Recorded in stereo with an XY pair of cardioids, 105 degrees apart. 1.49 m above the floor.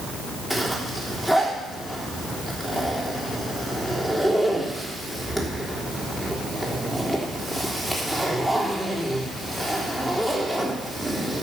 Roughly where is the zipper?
Ahead.